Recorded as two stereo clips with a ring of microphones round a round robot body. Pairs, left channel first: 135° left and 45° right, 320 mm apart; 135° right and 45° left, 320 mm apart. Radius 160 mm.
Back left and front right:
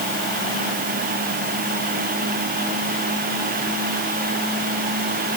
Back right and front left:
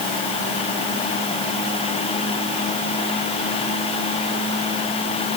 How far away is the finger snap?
No finger snap in this recording.